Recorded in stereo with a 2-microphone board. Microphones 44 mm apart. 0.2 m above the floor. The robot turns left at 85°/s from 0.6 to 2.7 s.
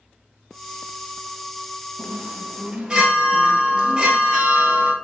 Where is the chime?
105° right, 1.5 m; by 5.0 s 165° right, 1.5 m.